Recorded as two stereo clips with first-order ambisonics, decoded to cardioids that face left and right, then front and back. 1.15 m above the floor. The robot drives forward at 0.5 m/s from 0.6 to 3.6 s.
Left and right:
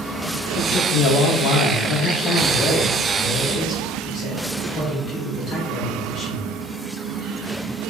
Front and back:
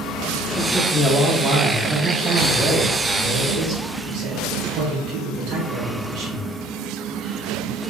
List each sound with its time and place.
0.6 s a man speaking: 70° left, 0.9 m; by 6.5 s 155° left, 1.5 m